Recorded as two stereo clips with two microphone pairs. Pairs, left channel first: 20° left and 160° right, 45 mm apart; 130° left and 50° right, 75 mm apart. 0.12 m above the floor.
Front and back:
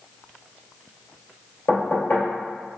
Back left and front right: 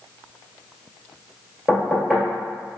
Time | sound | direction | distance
1.7 | knocking | 40° left | 1.8 m